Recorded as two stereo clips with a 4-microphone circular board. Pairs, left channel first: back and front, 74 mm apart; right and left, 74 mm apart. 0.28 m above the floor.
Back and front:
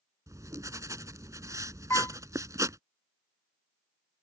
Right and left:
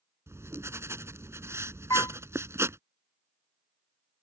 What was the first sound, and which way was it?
Writing, 40° left.